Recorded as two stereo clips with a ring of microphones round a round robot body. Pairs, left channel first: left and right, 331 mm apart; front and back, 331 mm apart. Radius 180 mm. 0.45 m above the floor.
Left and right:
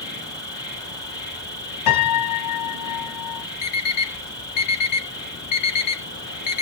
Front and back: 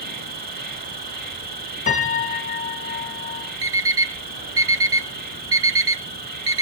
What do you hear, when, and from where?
0.0 s an insect: 160° left, 1.9 m
1.9 s a piano: 70° left, 2.5 m
3.6 s an alarm clock: 130° left, 2 m